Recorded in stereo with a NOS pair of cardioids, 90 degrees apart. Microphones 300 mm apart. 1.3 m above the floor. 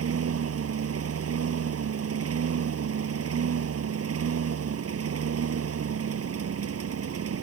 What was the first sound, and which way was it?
A lawn mower, 50° right.